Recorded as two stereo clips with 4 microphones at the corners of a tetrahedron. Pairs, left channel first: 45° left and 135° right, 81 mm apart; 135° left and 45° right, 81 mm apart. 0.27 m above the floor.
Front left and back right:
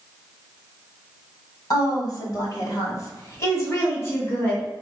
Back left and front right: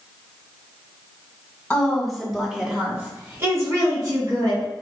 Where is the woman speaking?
60° left, 2 m; by 4.7 s 20° right, 2.5 m.